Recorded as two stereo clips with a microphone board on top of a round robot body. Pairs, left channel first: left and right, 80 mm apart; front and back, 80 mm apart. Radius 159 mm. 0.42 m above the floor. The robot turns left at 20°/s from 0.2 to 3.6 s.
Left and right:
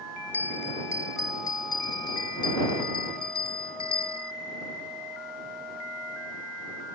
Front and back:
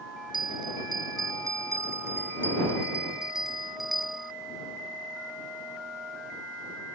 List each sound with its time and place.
0.3 s a bell: 155° left; by 4.3 s 90° left